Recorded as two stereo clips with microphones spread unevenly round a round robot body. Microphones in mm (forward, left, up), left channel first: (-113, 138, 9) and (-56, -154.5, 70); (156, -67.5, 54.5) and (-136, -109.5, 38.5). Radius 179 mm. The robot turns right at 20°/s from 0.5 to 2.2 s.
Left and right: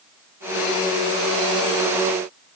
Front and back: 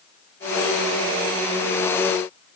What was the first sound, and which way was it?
Only background noise.